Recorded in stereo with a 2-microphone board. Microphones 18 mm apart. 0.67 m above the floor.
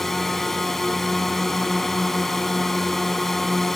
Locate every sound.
0.0 s a drone: 15° left (ahead or behind)